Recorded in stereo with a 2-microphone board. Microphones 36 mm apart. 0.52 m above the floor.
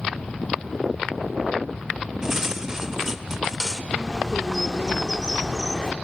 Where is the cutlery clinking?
15° right (ahead or behind), 0.8 m.